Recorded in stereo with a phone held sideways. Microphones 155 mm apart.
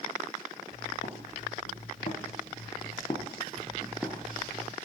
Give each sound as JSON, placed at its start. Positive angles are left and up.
{"t": 0.7, "sound": "footsteps", "side_deg": 60, "distance_m": 3.0}